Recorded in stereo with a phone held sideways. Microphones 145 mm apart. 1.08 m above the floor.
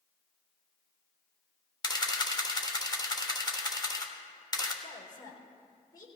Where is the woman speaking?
30° left (ahead or behind), 4 m.